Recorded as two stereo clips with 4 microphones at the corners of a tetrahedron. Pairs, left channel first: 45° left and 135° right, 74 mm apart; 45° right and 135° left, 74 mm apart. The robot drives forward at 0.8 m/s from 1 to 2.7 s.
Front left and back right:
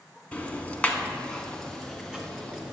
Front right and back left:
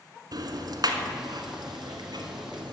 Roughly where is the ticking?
Behind left.